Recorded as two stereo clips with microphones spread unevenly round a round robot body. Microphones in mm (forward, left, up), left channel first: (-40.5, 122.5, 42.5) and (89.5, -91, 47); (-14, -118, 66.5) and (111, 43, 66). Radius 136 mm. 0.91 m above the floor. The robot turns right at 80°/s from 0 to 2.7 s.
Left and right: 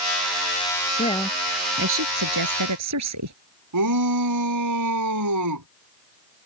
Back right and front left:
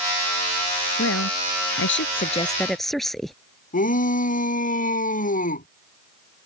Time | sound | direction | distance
1.0 | a woman speaking | 175° right | ?
3.7 | a shout | 80° right | ?